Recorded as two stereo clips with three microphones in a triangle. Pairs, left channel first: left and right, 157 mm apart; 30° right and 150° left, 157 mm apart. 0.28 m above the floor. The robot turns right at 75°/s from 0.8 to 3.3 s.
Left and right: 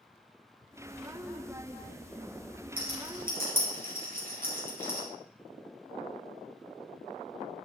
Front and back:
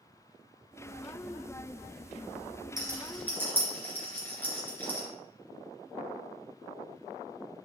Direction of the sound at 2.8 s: 145° right.